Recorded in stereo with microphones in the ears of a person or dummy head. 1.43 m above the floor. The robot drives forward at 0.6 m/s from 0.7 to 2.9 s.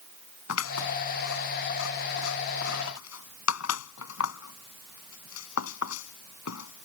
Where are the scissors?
85° left; by 6.9 s 80° left.